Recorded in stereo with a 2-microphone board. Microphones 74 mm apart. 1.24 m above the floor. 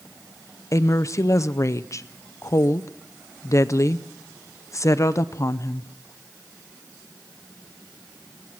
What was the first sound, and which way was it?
A woman speaking, 45° left (ahead or behind).